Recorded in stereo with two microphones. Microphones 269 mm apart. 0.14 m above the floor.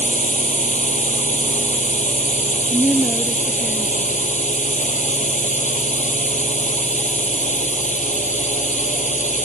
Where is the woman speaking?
Centre (ahead or behind).